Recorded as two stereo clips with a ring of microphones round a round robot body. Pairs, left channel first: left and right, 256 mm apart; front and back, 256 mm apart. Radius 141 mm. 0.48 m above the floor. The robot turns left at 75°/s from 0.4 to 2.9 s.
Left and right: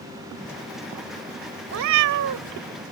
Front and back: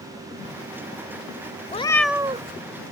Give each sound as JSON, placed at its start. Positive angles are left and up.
{"t": 1.7, "sound": "a cat meowing", "azimuth_deg": -60}